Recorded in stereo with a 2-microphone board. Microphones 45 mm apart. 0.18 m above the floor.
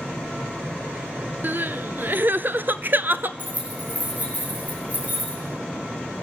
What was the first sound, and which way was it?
Crying, 50° right (ahead or behind).